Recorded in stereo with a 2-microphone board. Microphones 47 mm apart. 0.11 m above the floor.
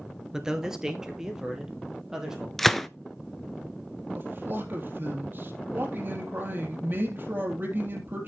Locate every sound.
0.3 s a man speaking: 15° right (ahead or behind), 1.3 m
2.6 s a gunshot: 5° left (ahead or behind), 0.5 m
4.2 s a man speaking: 45° right (ahead or behind), 3.5 m